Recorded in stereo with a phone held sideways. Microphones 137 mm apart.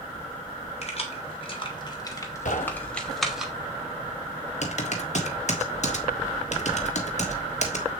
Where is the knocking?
60° left (ahead or behind), 1.0 m.